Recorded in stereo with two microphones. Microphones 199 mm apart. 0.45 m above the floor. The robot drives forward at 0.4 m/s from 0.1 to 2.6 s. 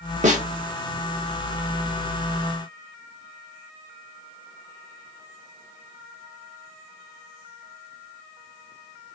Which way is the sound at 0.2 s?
40° right (ahead or behind).